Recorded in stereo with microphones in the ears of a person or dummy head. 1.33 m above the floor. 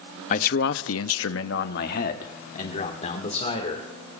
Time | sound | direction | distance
0.3 | a man speaking | 40° left (ahead or behind) | 0.7 m